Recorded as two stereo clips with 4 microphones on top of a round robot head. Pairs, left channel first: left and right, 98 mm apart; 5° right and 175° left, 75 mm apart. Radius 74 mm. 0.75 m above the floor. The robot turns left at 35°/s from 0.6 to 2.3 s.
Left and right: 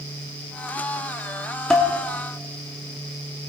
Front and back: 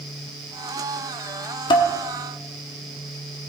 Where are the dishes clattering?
10° left, 1.1 m; by 1.9 s straight ahead, 1.1 m.